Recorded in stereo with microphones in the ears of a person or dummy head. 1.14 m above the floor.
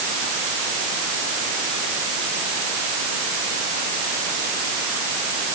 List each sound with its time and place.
Only background noise.